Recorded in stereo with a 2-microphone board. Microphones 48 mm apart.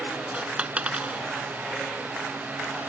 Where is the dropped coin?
30° right (ahead or behind).